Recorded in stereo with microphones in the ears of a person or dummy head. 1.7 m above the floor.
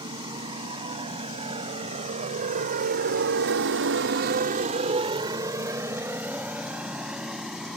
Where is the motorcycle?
30° right (ahead or behind); by 7.8 s centre (ahead or behind).